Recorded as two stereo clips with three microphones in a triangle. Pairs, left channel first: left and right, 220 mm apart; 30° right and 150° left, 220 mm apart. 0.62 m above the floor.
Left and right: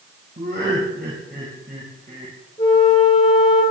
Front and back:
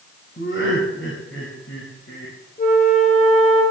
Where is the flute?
20° left, 6 m.